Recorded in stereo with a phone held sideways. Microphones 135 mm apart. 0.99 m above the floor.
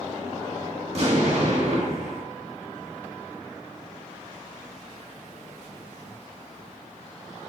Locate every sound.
0.9 s an explosion: 50° right (ahead or behind), 1.4 m